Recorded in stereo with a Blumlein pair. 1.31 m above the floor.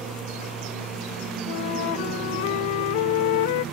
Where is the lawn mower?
20° right; by 3.8 s 25° right.